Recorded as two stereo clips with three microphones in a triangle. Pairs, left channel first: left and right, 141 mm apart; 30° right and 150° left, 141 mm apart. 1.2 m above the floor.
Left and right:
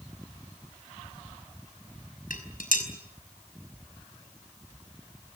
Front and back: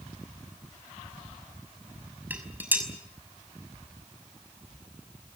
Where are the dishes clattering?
75° left, 5.5 m.